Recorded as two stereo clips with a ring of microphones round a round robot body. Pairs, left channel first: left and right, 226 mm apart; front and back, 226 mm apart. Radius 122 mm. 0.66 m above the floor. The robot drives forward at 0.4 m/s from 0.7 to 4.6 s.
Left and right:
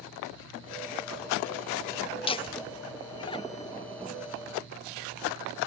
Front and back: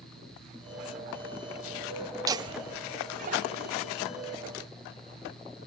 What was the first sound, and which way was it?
Laughter, 125° left.